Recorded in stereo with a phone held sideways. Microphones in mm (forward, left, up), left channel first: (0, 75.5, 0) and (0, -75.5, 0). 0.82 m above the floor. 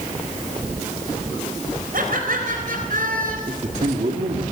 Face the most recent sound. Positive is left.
turn(degrees=-55)  # may be behind; listen again after turning